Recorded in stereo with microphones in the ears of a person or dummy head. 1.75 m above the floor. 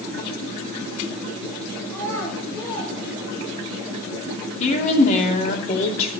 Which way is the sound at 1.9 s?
10° left (ahead or behind).